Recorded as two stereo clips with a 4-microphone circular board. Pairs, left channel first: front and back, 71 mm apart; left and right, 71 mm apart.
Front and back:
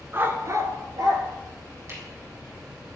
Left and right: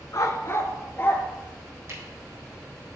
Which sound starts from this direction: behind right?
A camera shutter, at 1.9 s.